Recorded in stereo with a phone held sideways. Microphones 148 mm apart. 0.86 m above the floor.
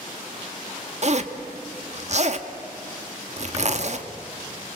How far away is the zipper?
About 1.3 m.